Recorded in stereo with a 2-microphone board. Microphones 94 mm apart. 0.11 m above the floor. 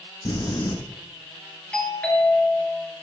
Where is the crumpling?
40° left (ahead or behind), 0.9 m.